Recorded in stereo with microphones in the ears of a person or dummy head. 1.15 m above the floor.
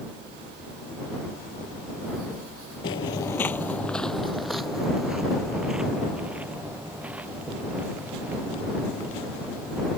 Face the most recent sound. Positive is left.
turn(degrees=-10)  # may be behind; listen again after turning